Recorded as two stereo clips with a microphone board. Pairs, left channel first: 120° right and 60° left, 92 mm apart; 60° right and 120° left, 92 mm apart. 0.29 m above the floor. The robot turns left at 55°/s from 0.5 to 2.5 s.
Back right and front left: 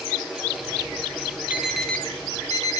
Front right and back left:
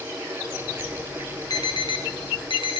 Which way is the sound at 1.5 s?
15° right.